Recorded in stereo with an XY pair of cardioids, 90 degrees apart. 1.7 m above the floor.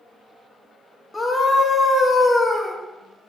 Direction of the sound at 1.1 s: 20° left.